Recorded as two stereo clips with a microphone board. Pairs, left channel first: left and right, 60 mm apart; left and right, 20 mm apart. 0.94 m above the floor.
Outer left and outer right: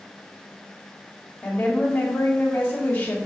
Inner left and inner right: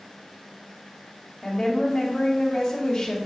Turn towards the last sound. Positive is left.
turn(degrees=30)  # may be behind; listen again after turning